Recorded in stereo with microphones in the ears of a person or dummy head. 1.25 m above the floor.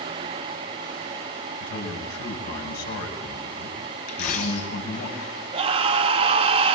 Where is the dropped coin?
45° left (ahead or behind), 2.5 m.